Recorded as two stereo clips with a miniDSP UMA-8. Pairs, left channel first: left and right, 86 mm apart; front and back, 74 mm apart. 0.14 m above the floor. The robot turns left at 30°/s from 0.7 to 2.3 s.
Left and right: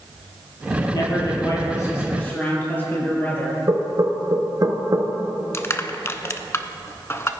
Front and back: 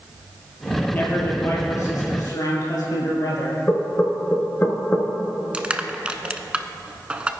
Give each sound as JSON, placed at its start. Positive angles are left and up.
{"t": 0.9, "sound": "a man speaking", "azimuth_deg": 65, "distance_m": 3.5}
{"t": 3.7, "sound": "knocking", "azimuth_deg": -55, "distance_m": 1.2}
{"t": 5.5, "sound": "crushing", "azimuth_deg": 120, "distance_m": 0.5}